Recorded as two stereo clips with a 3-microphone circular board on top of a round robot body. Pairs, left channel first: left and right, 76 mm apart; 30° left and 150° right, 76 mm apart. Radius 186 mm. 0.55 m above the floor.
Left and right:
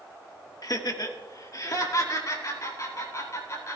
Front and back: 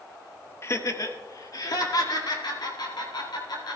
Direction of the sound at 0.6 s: 75° left.